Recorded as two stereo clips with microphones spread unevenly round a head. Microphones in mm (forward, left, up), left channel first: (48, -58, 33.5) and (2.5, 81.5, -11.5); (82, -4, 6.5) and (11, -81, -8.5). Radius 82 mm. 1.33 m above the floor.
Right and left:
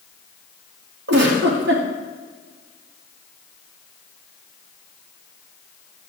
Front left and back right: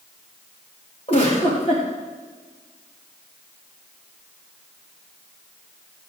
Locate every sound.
1.1 s a giggle: 110° left, 2.5 m